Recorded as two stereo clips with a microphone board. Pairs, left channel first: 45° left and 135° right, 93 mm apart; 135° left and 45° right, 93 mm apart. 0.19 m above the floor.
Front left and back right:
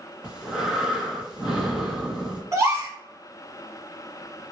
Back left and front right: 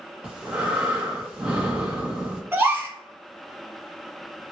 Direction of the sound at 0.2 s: 75° right.